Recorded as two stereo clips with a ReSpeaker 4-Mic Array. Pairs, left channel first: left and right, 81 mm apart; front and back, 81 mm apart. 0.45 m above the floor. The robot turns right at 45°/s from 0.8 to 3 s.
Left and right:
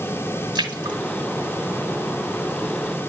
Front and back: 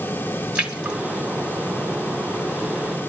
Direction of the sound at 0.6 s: 105° right.